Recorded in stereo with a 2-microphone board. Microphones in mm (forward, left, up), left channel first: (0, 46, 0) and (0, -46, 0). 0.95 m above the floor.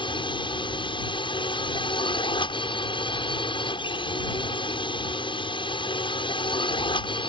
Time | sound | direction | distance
0.0 | a drone | 65° left (ahead or behind) | ?